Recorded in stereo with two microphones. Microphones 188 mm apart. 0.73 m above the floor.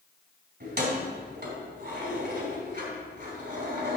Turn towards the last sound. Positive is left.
turn(degrees=-60)  # may be behind; listen again after turning